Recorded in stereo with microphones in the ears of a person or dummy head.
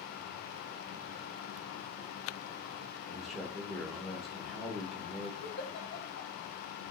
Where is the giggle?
55° left (ahead or behind), 1.4 m.